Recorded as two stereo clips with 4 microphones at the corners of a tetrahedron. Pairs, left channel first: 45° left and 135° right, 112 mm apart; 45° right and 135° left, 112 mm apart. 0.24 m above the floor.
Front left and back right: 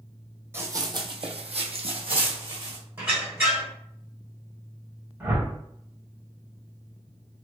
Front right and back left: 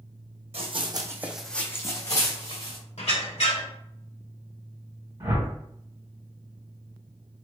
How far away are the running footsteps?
About 0.6 m.